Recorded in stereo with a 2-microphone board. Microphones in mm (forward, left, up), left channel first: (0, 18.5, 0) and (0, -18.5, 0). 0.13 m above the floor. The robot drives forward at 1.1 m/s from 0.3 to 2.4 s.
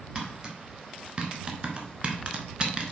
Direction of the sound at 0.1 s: 20° right (ahead or behind).